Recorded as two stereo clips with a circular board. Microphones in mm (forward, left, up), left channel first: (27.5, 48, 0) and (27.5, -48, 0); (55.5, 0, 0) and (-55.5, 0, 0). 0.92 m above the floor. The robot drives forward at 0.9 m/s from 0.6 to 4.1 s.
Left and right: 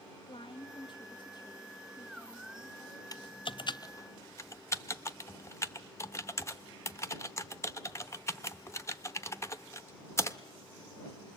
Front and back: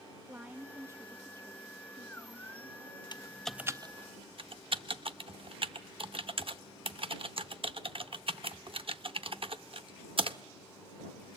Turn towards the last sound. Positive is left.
turn(degrees=150)